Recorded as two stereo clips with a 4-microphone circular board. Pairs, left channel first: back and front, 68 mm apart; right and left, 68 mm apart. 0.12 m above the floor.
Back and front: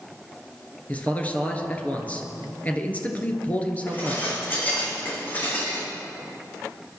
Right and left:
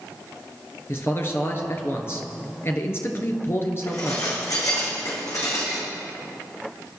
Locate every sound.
0.9 s a man speaking: 120° right, 1.9 m
3.9 s dishes clattering: 120° right, 4.5 m